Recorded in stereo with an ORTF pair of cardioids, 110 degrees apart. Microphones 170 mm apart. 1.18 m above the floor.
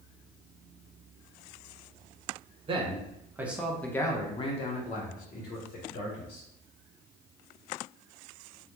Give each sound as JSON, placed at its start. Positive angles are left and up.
{"t": 2.7, "sound": "a man speaking", "azimuth_deg": -30, "distance_m": 0.9}